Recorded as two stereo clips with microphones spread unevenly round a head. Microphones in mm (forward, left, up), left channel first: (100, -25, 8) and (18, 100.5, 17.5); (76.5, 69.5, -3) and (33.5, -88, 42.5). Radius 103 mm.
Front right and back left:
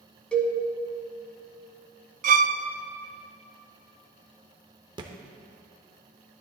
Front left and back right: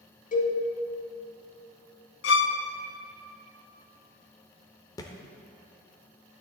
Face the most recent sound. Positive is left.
turn(degrees=160)